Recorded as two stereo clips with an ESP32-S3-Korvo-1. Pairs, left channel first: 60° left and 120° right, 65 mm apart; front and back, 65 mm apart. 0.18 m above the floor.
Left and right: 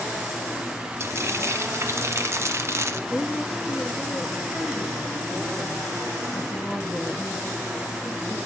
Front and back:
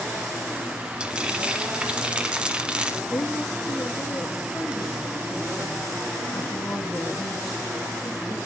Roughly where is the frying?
Right.